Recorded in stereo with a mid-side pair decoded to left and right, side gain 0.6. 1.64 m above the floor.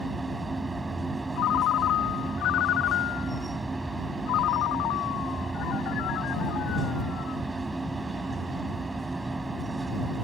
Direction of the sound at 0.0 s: 20° right.